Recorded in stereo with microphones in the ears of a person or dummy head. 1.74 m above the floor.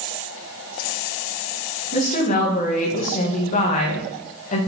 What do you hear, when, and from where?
1.9 s a woman speaking: 40° left (ahead or behind), 2.0 m